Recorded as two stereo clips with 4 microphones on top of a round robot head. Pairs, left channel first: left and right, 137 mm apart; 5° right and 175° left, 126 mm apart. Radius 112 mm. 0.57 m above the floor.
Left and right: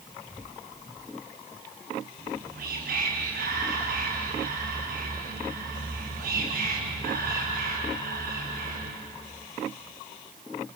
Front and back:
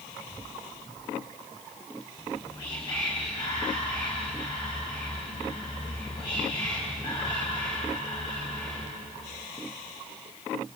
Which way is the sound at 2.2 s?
65° right.